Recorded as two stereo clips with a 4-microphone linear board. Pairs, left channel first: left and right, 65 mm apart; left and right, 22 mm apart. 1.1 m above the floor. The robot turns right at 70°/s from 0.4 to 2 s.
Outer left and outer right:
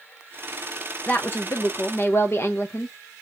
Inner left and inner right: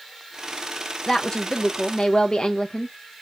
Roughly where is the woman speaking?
Ahead left.